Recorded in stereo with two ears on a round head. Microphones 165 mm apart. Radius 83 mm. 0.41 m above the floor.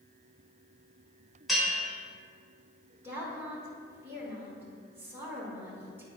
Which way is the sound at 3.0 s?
15° right (ahead or behind).